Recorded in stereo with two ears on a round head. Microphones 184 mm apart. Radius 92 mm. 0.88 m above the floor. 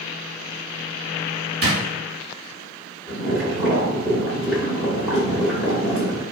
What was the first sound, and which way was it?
A drawer, 55° right (ahead or behind).